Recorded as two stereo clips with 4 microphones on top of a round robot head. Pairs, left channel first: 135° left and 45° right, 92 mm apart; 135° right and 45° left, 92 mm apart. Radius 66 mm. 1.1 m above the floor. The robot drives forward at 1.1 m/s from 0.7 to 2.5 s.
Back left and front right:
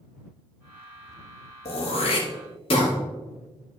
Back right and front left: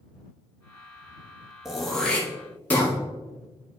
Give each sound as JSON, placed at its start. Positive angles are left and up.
{"t": 1.6, "sound": "throat clearing", "azimuth_deg": 135, "distance_m": 1.4}